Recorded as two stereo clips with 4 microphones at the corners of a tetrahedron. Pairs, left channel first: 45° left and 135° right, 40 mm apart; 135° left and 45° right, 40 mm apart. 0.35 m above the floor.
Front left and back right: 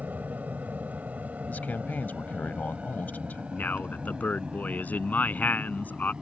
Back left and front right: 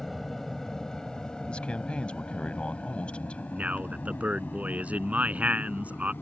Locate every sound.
0.0 s an aircraft: 140° right; by 6.2 s 160° left
1.5 s a man speaking: 75° left
3.5 s a man speaking: 5° left